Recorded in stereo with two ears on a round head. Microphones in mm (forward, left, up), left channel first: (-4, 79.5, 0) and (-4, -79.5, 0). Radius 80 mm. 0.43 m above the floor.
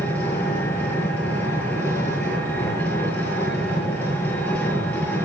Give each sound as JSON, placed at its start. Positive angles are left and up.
{"t": 0.0, "sound": "an engine running", "side_deg": 10, "distance_m": 6.5}